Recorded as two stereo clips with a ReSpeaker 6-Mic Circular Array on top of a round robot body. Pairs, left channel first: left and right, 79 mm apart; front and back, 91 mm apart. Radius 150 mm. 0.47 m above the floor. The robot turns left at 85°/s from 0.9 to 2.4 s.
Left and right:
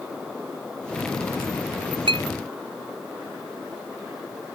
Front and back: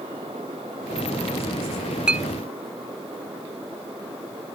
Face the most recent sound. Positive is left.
turn(degrees=-125)